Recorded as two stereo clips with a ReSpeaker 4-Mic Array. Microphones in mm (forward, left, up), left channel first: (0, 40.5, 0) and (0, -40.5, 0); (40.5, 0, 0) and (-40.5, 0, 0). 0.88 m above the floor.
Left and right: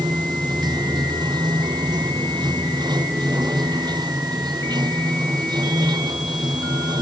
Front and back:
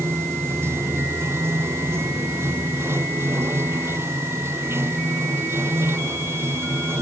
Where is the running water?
120° right.